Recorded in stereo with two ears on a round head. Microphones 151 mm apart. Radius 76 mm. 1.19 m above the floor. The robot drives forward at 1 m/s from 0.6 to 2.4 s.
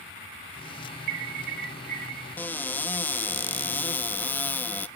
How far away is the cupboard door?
About 0.6 m.